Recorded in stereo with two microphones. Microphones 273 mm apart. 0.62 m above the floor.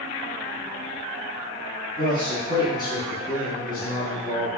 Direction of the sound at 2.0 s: 15° left (ahead or behind).